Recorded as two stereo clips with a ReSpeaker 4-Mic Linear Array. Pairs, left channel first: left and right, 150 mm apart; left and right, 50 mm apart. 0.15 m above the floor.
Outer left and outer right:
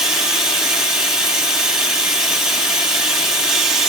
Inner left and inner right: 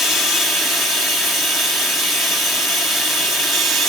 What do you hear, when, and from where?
0.0 s running water: 5° right (ahead or behind), 2.5 m